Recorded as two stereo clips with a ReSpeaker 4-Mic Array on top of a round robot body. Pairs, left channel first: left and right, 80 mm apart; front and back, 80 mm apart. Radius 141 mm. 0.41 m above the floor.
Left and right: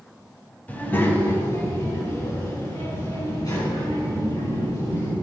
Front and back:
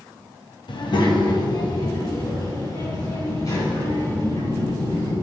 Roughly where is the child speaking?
Ahead.